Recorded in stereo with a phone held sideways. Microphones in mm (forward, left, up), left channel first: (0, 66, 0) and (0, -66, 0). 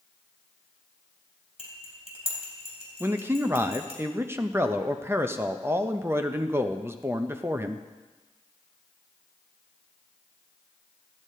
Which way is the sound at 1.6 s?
45° left (ahead or behind).